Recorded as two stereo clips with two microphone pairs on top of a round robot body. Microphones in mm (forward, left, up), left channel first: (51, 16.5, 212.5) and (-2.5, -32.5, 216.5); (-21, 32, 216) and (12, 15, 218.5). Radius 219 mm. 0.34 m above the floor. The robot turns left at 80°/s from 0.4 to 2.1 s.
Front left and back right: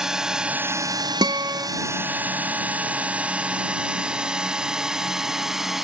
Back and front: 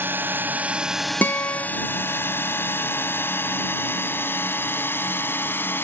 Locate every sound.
0.0 s a drone: 55° right; by 5.8 s 135° left
1.2 s a guitar: 165° right; by 1.7 s 160° left